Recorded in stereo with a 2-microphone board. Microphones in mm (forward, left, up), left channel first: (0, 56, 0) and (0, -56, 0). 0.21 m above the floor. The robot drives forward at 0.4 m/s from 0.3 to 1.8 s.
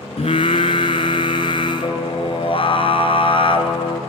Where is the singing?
70° left (ahead or behind), 1.3 m; by 4.0 s 55° left (ahead or behind), 1.5 m.